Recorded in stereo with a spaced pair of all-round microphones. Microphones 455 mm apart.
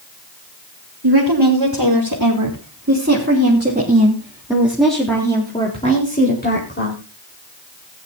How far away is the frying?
I don't hear frying.